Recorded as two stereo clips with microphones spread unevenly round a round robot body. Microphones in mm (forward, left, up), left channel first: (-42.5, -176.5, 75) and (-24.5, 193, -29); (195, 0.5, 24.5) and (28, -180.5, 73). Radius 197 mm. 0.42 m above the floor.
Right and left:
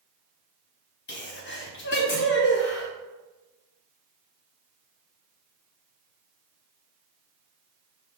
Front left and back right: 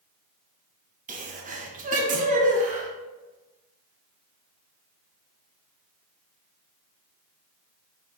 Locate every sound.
1.1 s a sneeze: 145° right, 0.9 m